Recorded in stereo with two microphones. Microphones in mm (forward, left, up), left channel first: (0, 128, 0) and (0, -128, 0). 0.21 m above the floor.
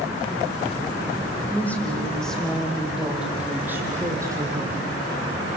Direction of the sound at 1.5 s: 5° left (ahead or behind).